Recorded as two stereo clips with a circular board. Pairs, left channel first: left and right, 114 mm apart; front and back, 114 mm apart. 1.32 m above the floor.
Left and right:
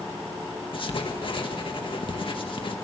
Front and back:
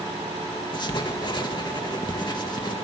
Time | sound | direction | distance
0.7 | writing | 50° left | 1.8 m